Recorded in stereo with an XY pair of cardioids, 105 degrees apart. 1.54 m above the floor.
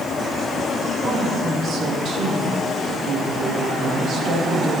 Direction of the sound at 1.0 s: 55° right.